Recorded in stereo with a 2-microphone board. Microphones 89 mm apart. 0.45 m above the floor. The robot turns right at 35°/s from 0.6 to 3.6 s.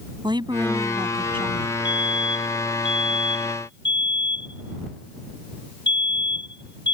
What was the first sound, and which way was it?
A woman speaking, 120° right.